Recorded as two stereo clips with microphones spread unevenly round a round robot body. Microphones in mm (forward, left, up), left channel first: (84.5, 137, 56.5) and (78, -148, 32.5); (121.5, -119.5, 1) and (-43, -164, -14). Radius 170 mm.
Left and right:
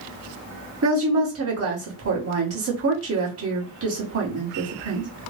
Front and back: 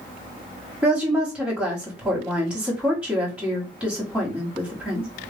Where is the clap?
I don't hear a clap.